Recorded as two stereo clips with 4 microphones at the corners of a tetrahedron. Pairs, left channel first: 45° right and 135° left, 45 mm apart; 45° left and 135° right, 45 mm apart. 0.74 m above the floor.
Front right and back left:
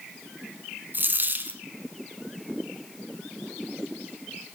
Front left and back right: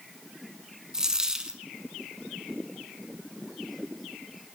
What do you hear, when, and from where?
0.9 s a dropped coin: 155° left, 0.8 m